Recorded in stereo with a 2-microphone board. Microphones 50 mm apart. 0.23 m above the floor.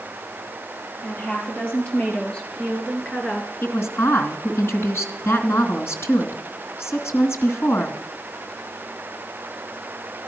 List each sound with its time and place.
1.0 s a woman speaking: 35° left (ahead or behind), 5.5 m; by 3.5 s 10° left (ahead or behind), 2.5 m
3.6 s a woman speaking: 60° left (ahead or behind), 2.5 m